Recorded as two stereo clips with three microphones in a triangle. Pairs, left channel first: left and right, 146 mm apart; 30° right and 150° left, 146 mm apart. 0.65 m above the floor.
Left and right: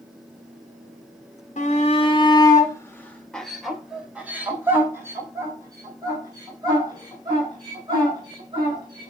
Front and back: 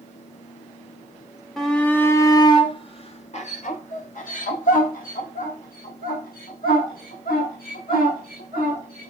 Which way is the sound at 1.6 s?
60° left.